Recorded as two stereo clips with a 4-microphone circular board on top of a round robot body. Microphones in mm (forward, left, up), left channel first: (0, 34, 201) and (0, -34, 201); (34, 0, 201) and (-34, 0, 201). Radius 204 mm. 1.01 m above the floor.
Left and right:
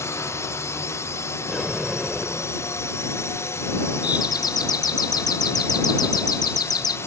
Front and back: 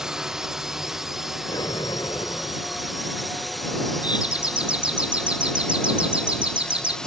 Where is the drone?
100° left; by 7.1 s 75° left.